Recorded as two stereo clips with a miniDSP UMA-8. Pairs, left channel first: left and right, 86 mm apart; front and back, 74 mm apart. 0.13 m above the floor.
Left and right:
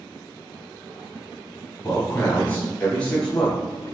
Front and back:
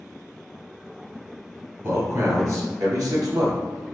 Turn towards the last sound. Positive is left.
turn(degrees=175)